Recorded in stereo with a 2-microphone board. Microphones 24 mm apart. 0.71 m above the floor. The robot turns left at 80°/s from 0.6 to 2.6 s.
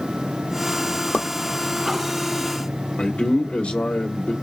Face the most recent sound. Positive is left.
turn(degrees=65)  # may be behind; listen again after turning